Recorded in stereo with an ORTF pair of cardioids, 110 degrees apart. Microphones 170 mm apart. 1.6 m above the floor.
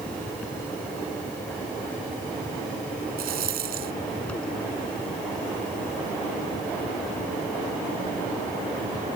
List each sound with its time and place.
0.0 s a fan: 5° left
3.2 s a rattle: 65° right